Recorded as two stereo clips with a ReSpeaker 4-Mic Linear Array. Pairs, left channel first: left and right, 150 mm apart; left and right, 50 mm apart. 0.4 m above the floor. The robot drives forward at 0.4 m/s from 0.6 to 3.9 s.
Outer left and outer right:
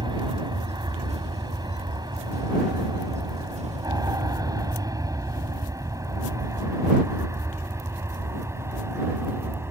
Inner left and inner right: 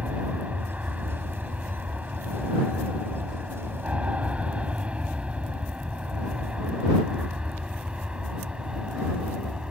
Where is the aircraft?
30° right (ahead or behind); by 9.7 s 15° right (ahead or behind).